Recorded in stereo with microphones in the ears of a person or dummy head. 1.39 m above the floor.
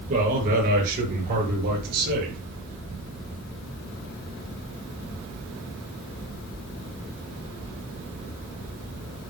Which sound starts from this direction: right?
A man speaking, at 0.1 s.